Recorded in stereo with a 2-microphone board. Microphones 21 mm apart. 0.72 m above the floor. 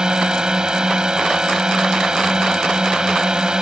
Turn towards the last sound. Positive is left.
turn(degrees=-35)  # may be behind; listen again after turning